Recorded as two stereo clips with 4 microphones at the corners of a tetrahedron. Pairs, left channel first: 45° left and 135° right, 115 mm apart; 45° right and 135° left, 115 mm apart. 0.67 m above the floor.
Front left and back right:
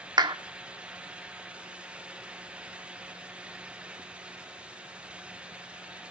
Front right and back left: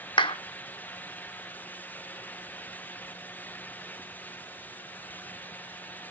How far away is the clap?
About 0.9 m.